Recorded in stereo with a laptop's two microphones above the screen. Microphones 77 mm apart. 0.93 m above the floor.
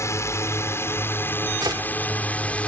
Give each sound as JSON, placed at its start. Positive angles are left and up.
{"t": 0.0, "sound": "a drone", "side_deg": 40}
{"t": 1.6, "sound": "a gunshot", "side_deg": -65}